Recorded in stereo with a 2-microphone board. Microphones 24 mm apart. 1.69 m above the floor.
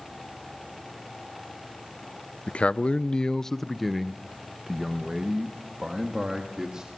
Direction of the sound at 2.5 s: 60° left (ahead or behind).